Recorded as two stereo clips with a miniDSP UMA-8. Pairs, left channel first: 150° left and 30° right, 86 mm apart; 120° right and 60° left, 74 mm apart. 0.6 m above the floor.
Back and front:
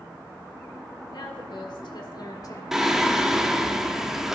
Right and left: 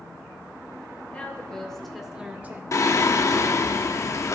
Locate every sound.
1.1 s a woman speaking: 170° left, 2.5 m; by 2.6 s 110° left, 1.3 m
2.7 s singing: 110° right, 0.8 m